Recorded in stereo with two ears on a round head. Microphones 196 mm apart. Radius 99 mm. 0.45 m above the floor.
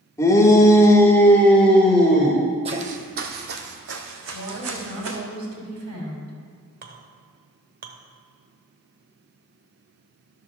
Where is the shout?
15° left (ahead or behind), 1.4 m; by 2.4 s centre (ahead or behind), 1.8 m.